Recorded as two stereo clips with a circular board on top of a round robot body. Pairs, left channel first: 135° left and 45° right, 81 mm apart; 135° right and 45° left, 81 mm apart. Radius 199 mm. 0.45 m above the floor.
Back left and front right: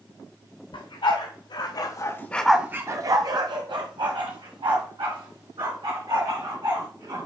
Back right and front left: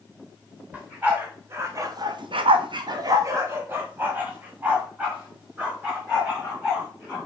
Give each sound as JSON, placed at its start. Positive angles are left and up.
{"t": 0.7, "sound": "a dog barking", "azimuth_deg": 120, "distance_m": 1.7}